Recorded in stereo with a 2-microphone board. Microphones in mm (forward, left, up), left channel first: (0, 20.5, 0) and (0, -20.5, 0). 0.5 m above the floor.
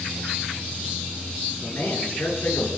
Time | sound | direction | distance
1.6 | a man speaking | 80° left | 9.5 m